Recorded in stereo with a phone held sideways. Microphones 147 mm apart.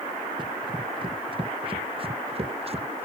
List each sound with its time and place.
0.4 s running footsteps: 30° right (ahead or behind); by 3.0 s 45° right (ahead or behind)